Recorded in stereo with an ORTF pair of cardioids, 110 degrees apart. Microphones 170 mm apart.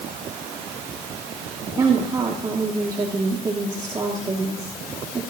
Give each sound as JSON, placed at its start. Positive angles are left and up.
{"t": 1.8, "sound": "a woman speaking", "azimuth_deg": -25, "distance_m": 2.5}